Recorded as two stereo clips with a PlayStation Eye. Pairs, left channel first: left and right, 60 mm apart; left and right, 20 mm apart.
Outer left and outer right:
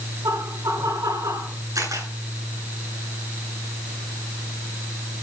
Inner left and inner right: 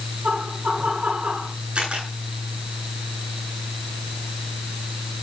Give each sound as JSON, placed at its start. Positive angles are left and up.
{"t": 0.2, "sound": "laughter", "side_deg": -80, "distance_m": 8.5}
{"t": 1.8, "sound": "a camera shutter", "side_deg": -70, "distance_m": 9.0}